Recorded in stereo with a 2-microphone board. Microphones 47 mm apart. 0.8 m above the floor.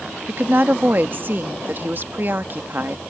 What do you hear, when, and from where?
0.3 s a woman speaking: 45° right (ahead or behind)